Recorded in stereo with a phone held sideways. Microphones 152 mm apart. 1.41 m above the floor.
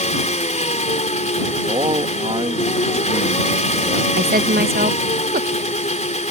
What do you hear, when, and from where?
0.0 s an engine running: 45° left (ahead or behind)
1.7 s a man speaking: 35° right (ahead or behind)
4.2 s a woman speaking: 70° right (ahead or behind)